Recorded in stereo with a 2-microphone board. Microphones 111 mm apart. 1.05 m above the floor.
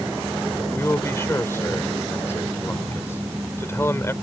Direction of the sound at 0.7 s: 25° left (ahead or behind).